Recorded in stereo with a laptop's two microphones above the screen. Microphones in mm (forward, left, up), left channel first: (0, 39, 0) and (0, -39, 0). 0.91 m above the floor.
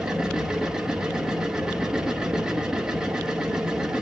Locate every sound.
0.0 s a machine running: 10° right (ahead or behind), 0.9 m